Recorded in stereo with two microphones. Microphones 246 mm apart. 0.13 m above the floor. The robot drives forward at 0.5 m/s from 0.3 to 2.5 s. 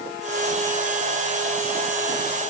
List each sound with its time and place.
Only background noise.